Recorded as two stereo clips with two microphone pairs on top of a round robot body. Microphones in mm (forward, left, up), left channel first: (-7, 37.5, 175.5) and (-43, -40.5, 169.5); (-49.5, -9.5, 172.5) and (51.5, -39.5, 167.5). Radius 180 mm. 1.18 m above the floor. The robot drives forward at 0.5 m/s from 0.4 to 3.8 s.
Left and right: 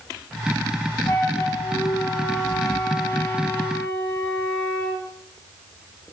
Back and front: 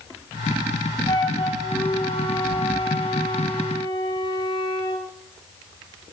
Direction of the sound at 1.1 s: 120° left.